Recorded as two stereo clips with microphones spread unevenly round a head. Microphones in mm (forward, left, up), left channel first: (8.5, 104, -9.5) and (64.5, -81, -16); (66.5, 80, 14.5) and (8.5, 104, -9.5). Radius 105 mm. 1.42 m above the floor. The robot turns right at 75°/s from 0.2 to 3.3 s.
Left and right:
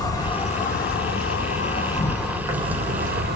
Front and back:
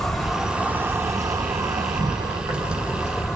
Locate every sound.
0.0 s an insect: 40° left, 0.9 m; by 3.4 s 85° right, 0.9 m